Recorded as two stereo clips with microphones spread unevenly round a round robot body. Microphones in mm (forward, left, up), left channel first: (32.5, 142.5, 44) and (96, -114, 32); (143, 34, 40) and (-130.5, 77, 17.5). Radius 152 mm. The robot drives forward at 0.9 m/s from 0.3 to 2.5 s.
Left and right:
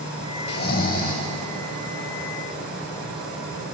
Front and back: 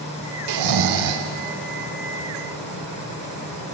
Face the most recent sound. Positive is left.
turn(degrees=175)